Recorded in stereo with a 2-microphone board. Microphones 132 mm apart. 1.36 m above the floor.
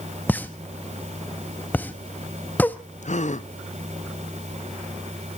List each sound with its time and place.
0.3 s a pop: 15° left (ahead or behind), 0.7 m
3.0 s a gasp: 65° left (ahead or behind), 0.7 m